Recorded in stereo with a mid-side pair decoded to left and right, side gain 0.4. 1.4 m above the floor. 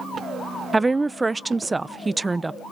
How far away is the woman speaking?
About 0.6 m.